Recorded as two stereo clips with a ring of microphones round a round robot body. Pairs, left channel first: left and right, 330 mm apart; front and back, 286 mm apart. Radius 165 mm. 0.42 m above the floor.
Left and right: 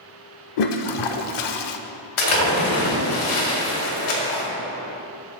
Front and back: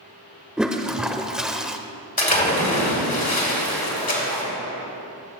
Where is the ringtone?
I don't hear a ringtone.